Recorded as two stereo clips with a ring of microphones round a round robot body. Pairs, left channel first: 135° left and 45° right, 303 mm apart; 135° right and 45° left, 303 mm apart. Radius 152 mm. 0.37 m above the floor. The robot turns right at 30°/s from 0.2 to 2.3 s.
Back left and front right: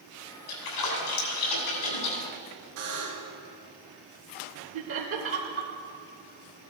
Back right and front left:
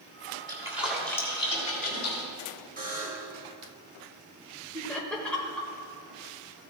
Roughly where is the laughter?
Ahead right.